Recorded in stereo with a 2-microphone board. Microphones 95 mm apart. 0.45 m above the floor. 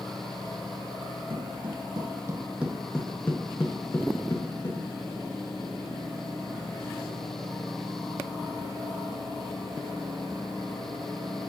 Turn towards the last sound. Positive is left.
turn(degrees=40)  # may be behind; listen again after turning